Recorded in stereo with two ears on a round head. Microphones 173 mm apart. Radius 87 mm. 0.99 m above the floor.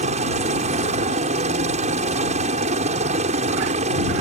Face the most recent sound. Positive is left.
turn(degrees=-35)  # may be behind; listen again after turning